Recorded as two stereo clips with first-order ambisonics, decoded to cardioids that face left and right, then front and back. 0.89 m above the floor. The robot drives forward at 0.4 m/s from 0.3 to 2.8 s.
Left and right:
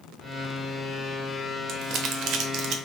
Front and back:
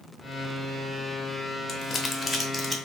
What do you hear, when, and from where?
1.7 s crumpling: 60° right, 0.8 m; by 2.8 s 105° right, 0.7 m